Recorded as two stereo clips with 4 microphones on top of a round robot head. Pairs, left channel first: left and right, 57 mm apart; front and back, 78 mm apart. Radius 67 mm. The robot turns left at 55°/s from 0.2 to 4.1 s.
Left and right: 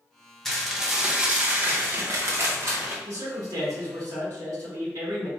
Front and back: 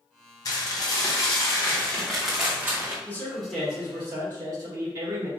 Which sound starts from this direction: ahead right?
A man speaking, at 3.0 s.